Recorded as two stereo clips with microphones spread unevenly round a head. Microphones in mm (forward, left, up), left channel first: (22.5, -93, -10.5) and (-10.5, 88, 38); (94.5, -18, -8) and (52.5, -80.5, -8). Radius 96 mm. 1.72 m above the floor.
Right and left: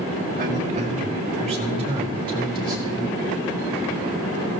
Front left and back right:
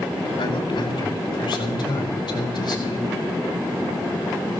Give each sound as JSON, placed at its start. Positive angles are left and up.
{"t": 0.4, "sound": "a man speaking", "azimuth_deg": 55, "distance_m": 4.0}